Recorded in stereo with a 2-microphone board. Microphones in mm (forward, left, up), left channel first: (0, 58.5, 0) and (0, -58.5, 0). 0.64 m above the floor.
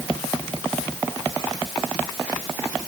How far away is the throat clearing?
I don't hear throat clearing.